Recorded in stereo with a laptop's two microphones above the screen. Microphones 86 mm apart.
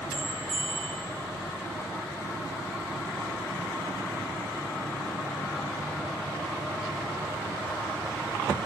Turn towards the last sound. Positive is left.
turn(degrees=-80)